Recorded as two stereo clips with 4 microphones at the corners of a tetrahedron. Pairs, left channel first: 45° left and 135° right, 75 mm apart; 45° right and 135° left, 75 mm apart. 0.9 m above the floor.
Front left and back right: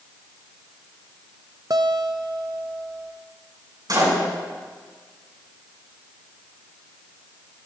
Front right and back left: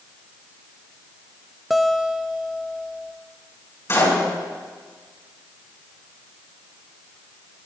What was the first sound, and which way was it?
A guitar, 135° right.